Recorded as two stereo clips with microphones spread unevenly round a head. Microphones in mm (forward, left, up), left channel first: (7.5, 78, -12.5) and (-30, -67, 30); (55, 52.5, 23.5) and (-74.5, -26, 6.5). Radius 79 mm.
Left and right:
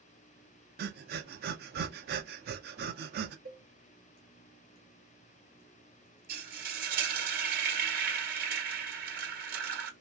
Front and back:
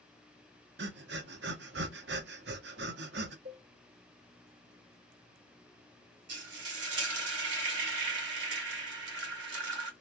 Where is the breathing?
125° right, 0.6 m.